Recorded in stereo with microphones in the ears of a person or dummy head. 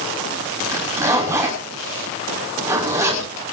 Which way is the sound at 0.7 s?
15° right (ahead or behind).